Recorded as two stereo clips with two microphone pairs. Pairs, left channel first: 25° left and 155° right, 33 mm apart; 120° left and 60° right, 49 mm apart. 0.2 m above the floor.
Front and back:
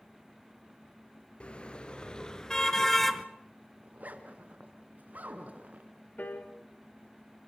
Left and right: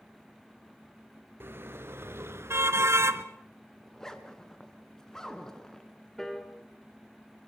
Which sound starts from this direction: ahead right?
A car horn, at 1.4 s.